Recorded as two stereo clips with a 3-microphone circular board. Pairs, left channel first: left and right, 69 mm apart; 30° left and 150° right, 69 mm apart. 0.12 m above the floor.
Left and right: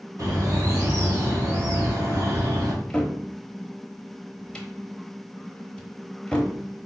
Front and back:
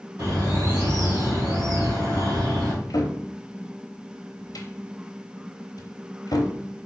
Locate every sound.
0.2 s a bird: 135° right, 2.5 m
2.7 s a cupboard door: 15° left, 0.9 m